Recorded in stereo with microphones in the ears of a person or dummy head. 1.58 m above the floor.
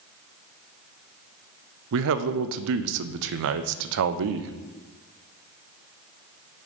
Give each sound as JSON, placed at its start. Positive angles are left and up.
{"t": 1.9, "sound": "a man speaking", "side_deg": -65, "distance_m": 0.5}